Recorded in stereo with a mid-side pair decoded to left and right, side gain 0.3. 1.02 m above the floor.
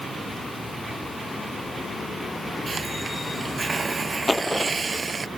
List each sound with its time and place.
2.7 s a hiss: 35° right
4.3 s a dropped coin: 30° left